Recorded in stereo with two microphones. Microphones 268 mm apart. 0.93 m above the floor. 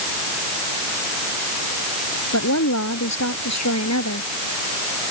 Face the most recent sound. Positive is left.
turn(degrees=75)  # may be behind; listen again after turning